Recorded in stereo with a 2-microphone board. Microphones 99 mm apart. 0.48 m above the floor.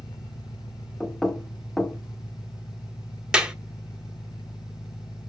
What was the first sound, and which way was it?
An engine running, 45° left (ahead or behind).